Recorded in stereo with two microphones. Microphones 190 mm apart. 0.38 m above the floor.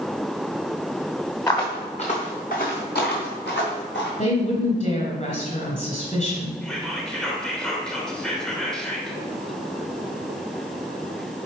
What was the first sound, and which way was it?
Footsteps, 15° left (ahead or behind).